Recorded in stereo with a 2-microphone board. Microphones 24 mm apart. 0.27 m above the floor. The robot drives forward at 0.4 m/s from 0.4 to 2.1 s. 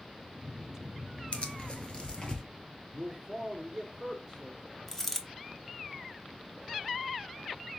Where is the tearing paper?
60° left (ahead or behind), 0.7 m; by 2.4 s 40° left (ahead or behind), 0.9 m.